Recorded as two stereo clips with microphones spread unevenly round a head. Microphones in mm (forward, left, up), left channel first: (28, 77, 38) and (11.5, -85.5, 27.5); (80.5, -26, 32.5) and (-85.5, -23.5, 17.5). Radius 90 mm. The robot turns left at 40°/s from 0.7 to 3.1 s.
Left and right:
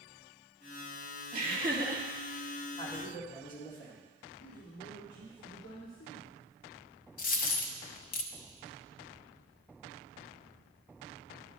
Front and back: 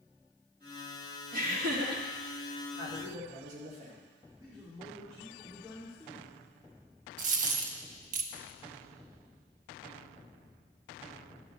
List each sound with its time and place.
1.3 s laughter: 145° right, 2 m; by 2.0 s 175° right, 2 m
2.8 s a man speaking: 145° left, 2 m; by 4.0 s 135° left, 2 m
4.4 s a man speaking: 105° left, 2.5 m
7.2 s a dropped coin: 130° left, 0.6 m